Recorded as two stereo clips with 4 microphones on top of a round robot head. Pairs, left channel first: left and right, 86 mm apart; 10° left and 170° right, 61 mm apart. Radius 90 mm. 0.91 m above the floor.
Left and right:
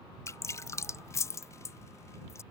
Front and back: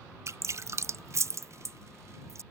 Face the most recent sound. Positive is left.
turn(degrees=145)